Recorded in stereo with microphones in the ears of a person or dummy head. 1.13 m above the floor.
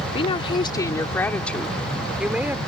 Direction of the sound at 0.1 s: 35° left (ahead or behind).